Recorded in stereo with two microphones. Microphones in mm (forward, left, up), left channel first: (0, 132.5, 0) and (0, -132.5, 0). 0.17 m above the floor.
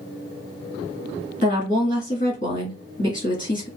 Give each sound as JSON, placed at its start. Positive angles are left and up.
{"t": 1.4, "sound": "a woman speaking", "side_deg": 30, "distance_m": 1.8}